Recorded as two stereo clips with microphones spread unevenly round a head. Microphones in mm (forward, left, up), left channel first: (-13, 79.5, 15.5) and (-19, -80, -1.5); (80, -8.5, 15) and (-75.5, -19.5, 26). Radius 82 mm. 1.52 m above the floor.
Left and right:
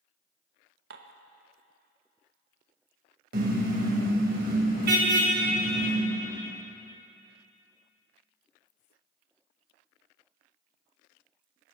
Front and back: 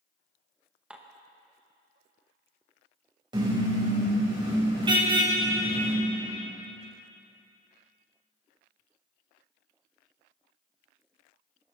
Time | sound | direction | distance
0.9 | dishes clattering | 95° right | 0.9 m
3.3 | a car horn | 120° right | 3.5 m